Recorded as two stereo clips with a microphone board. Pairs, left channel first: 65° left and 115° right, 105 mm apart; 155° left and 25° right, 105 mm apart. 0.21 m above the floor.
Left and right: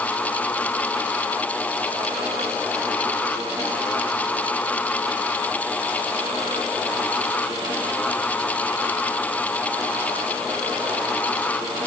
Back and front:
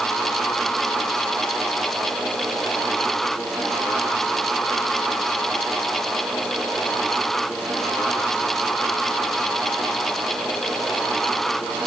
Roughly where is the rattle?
No rattle in this recording.